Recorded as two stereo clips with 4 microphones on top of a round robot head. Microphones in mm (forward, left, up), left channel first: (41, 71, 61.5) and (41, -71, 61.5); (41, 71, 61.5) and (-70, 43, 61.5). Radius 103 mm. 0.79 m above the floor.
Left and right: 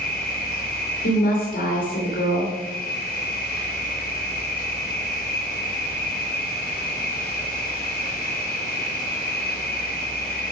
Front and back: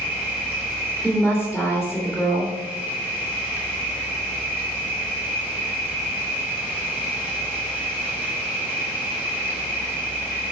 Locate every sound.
0.0 s an insect: 120° left, 4 m
1.0 s a woman speaking: 105° left, 2.5 m